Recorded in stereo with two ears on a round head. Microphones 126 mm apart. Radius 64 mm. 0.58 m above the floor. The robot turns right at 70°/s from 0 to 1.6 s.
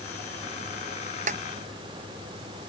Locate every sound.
1.3 s a snare drum: 55° right (ahead or behind); by 1.4 s 45° right (ahead or behind)